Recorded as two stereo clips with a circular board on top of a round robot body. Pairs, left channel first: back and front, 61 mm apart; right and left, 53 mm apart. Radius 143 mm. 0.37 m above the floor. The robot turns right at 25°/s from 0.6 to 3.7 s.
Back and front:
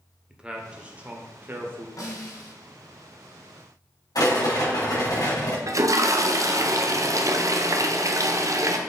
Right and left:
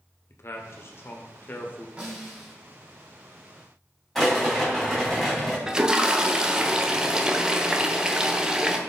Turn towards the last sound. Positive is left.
turn(degrees=15)